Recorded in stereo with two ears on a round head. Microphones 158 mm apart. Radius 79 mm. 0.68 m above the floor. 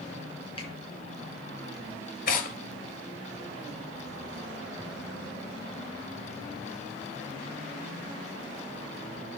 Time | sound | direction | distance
0.6 | a finger snap | 30° left (ahead or behind) | 6 m
2.3 | tearing paper | 45° left (ahead or behind) | 2.0 m